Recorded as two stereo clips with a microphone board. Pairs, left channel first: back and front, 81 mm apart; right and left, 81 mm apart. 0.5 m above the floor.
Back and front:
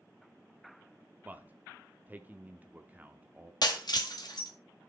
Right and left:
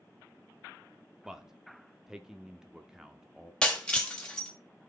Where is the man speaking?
20° left, 0.7 m.